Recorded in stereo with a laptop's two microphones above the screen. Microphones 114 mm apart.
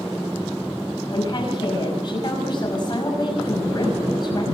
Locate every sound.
1.1 s a woman speaking: 40° left (ahead or behind), 5.5 m